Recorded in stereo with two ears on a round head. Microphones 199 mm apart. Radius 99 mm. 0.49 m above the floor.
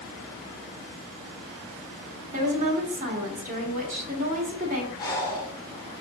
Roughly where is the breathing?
Centre.